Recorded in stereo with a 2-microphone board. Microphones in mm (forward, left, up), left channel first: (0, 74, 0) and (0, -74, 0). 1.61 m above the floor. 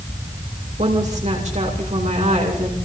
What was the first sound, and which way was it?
A woman speaking, 55° right (ahead or behind).